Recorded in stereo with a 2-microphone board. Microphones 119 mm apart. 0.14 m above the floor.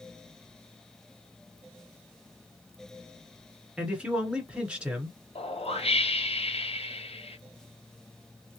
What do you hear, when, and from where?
3.8 s a man speaking: 10° right (ahead or behind), 1.5 m
5.3 s a whoosh: 55° left (ahead or behind), 0.7 m